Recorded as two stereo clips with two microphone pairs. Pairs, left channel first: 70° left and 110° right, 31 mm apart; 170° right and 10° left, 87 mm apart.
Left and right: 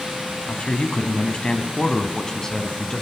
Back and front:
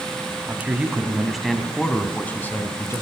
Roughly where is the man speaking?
Ahead left.